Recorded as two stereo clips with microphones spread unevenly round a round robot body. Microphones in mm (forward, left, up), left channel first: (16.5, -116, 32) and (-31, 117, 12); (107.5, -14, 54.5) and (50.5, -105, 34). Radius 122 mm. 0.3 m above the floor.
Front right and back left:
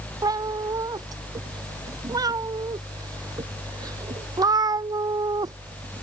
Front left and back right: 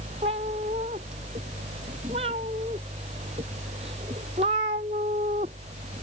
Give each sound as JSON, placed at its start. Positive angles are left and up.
{"t": 0.2, "sound": "a cat meowing", "azimuth_deg": 180}